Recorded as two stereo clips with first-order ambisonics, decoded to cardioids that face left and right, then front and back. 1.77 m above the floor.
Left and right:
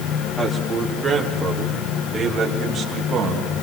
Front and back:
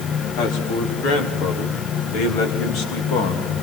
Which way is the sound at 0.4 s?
5° left.